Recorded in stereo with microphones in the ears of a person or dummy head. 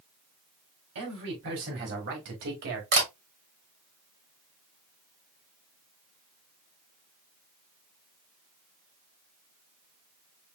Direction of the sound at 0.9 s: 60° right (ahead or behind).